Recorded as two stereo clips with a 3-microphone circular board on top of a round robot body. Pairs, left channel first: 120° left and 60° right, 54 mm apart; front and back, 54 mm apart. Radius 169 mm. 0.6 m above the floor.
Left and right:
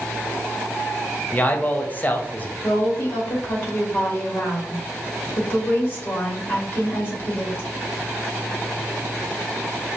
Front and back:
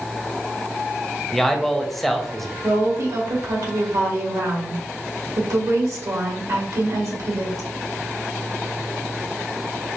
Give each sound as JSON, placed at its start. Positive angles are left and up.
{"t": 1.3, "sound": "a man speaking", "azimuth_deg": 85, "distance_m": 1.0}
{"t": 2.6, "sound": "a woman speaking", "azimuth_deg": 175, "distance_m": 1.9}